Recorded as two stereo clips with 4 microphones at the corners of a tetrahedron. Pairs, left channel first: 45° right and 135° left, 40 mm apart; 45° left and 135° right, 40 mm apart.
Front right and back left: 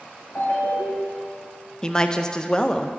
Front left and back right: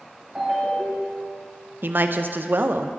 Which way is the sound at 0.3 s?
60° right.